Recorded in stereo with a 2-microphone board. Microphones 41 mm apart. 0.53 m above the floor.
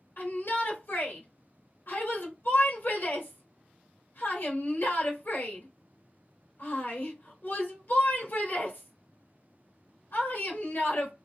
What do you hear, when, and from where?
0.2 s a shout: 55° left (ahead or behind), 1.6 m